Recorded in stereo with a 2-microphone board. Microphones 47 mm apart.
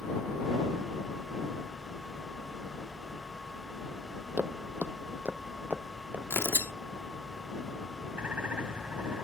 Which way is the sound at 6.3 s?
55° left (ahead or behind).